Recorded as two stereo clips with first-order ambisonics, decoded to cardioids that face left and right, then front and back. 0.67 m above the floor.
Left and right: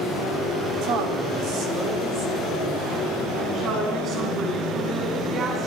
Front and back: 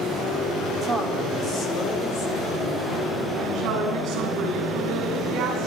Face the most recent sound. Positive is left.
turn(degrees=-140)